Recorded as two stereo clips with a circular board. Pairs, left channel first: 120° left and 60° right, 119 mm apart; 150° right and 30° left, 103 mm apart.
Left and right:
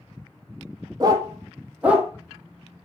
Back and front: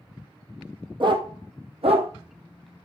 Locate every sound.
1.0 s a dog barking: 10° right, 1.0 m; by 2.1 s 25° left, 1.2 m